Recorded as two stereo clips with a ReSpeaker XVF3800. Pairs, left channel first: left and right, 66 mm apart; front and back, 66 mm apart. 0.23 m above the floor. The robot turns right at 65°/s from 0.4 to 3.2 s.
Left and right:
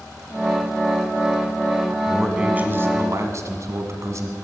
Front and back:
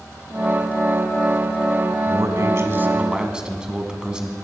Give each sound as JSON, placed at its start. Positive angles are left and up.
{"t": 2.1, "sound": "a man speaking", "azimuth_deg": 180, "distance_m": 1.5}